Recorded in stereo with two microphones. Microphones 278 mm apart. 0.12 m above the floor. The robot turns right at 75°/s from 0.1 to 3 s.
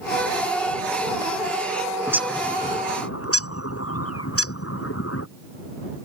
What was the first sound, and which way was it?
A bird, 10° right (ahead or behind).